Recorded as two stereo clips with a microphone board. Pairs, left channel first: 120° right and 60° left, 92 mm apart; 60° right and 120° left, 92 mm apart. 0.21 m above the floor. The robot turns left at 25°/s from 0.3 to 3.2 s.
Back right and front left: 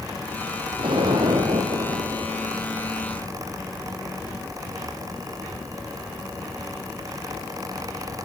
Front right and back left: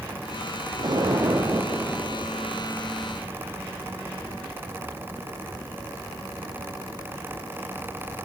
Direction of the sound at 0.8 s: 85° left.